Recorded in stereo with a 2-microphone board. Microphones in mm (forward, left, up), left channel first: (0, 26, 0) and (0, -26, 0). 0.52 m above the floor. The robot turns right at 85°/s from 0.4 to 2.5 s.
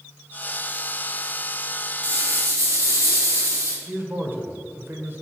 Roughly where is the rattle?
Right.